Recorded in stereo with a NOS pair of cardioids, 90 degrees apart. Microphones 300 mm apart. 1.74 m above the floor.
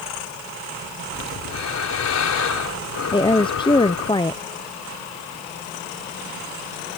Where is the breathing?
65° left.